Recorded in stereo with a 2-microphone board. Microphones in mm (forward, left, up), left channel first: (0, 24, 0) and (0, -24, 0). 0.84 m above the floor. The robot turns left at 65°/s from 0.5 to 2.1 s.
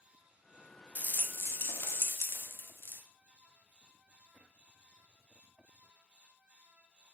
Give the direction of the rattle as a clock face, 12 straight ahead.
7 o'clock.